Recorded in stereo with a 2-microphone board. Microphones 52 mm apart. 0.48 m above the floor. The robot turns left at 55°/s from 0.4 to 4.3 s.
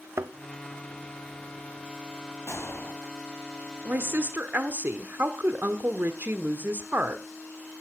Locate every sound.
0.2 s a thud: 55° right (ahead or behind), 0.6 m
2.5 s a gunshot: 65° left (ahead or behind), 2 m; by 3.0 s 40° left (ahead or behind), 2 m
3.9 s a woman speaking: 40° right (ahead or behind), 1.1 m